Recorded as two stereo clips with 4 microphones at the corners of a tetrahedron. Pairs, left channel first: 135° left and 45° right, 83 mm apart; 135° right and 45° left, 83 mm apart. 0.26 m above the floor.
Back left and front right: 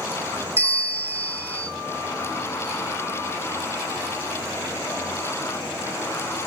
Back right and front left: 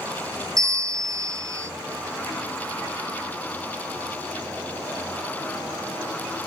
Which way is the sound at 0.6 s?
15° left.